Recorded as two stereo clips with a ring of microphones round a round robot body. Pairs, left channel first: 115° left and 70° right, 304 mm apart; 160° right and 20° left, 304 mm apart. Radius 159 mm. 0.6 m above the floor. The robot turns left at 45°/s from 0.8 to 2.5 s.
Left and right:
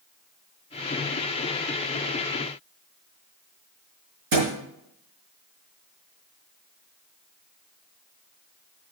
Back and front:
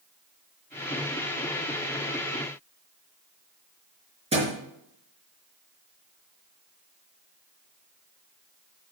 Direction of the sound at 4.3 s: 50° right.